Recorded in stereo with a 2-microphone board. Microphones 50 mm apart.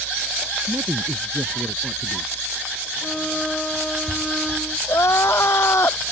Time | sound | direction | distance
0.7 | a man speaking | 75° right (ahead or behind) | ?
3.0 | a violin | 10° left (ahead or behind) | ?
4.9 | crying | 65° left (ahead or behind) | ?